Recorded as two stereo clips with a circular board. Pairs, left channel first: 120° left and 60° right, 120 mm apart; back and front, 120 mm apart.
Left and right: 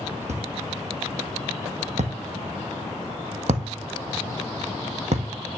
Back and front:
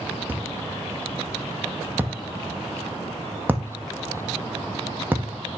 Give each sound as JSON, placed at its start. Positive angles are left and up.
{"t": 0.3, "sound": "a thud", "azimuth_deg": -75, "distance_m": 1.9}